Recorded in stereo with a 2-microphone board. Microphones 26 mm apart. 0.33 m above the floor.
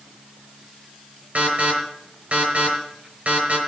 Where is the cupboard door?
No cupboard door in this recording.